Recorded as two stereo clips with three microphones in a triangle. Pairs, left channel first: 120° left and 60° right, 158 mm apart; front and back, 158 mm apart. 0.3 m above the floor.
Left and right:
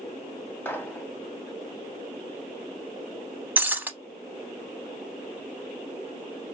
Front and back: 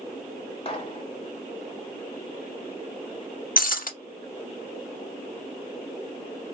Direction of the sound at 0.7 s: 45° left.